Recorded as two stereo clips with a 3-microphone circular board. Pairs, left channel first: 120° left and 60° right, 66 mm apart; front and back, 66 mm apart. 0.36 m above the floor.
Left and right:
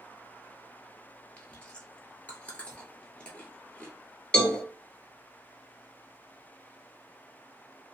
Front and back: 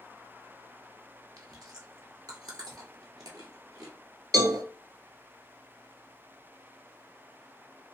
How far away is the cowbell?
About 0.7 m.